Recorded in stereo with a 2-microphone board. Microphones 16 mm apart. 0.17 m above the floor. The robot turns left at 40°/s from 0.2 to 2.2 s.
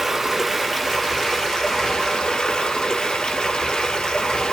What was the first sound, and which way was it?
Running water, 165° right.